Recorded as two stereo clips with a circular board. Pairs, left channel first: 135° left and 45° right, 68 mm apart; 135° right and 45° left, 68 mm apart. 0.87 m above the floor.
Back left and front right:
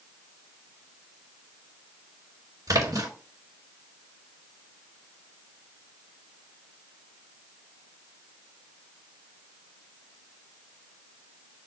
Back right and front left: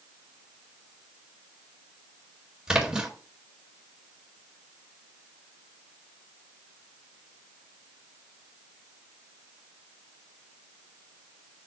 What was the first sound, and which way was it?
A splash, 30° right.